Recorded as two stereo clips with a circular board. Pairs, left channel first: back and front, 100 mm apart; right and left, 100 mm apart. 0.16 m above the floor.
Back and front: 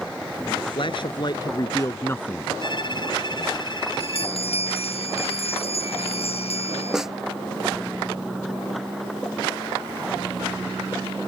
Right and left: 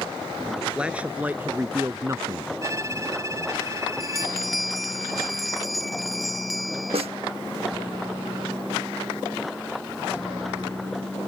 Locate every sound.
0.6 s a man speaking: 170° left; by 2.5 s 105° left
2.6 s a violin: 145° left
4.0 s a bell: straight behind
6.9 s a snare drum: 85° left